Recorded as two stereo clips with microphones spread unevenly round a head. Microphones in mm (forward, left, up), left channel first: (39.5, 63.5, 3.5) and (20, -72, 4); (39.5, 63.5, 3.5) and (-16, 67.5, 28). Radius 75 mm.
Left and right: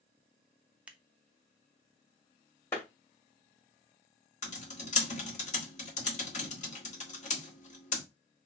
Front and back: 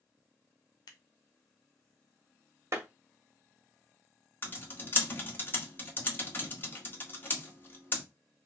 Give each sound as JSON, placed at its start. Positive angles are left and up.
{"t": 0.9, "sound": "scissors", "azimuth_deg": -20, "distance_m": 0.8}
{"t": 2.7, "sound": "a clap", "azimuth_deg": 155, "distance_m": 1.8}
{"t": 4.4, "sound": "typing on a keyboard", "azimuth_deg": 60, "distance_m": 1.6}